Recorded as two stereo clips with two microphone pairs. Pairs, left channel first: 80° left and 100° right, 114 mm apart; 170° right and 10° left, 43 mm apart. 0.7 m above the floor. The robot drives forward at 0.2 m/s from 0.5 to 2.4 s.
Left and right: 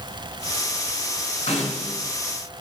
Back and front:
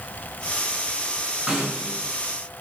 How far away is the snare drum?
About 3 m.